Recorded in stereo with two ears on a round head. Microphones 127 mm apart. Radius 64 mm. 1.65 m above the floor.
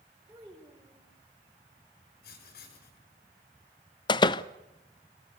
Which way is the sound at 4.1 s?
30° left (ahead or behind).